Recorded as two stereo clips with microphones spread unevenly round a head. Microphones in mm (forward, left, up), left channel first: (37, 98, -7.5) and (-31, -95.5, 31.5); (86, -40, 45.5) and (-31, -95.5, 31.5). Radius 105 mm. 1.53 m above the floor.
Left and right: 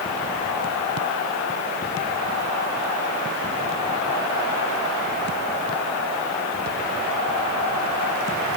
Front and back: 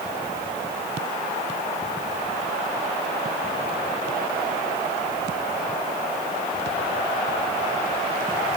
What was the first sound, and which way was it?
Only background noise.